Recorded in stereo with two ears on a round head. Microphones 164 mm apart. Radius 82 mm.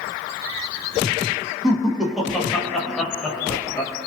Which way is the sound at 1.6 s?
5° right (ahead or behind).